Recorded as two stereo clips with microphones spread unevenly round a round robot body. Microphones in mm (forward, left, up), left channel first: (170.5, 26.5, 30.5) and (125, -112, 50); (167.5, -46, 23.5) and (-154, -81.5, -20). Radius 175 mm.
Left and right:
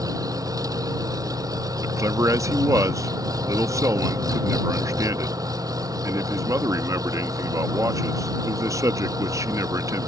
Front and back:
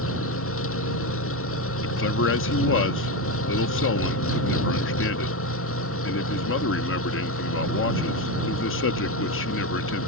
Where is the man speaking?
35° right.